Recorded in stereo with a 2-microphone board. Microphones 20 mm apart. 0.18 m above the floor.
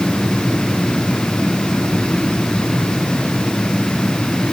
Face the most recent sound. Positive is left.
No sound to turn to.